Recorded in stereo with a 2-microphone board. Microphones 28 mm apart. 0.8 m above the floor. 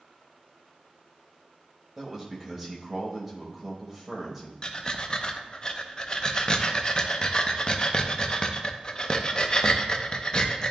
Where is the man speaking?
5° right (ahead or behind), 1.2 m.